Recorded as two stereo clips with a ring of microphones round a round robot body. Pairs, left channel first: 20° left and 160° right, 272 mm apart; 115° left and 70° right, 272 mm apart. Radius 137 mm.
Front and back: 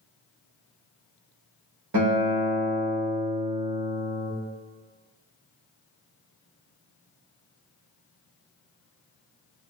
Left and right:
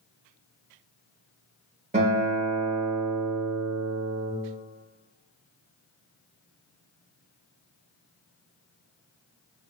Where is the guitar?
130° right, 1.2 m.